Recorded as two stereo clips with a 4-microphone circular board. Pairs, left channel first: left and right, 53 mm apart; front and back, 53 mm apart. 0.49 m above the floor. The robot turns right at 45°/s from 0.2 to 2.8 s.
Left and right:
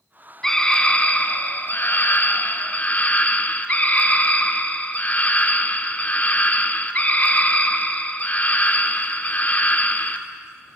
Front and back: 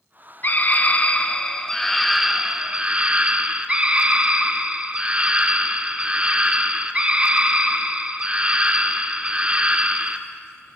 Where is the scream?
20° left, 0.8 m; by 10.2 s 125° left, 0.8 m.